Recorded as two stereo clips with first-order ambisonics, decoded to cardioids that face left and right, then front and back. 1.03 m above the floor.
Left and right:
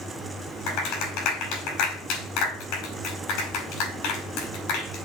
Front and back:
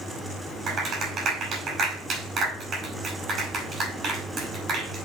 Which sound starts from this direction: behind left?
A clap, at 0.7 s.